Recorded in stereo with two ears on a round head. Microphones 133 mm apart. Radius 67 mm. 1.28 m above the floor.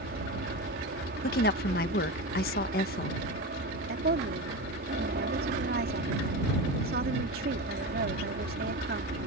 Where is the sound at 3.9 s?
70° right (ahead or behind).